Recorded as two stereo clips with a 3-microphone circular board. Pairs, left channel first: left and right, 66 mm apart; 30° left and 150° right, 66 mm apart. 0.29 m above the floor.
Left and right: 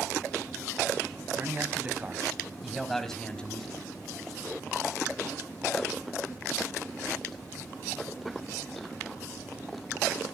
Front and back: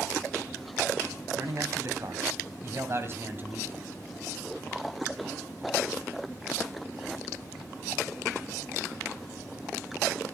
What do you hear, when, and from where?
1.4 s a man speaking: 130° right, 2.5 m; by 3.8 s 150° left, 2.5 m